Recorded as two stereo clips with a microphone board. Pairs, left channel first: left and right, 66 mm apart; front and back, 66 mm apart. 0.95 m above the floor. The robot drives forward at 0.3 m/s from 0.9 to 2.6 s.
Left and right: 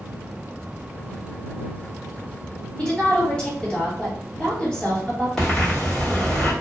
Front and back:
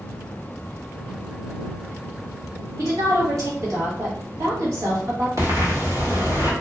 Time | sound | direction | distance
2.8 | a woman speaking | 165° left | 1.6 m
5.4 | breathing | 170° left | 1.3 m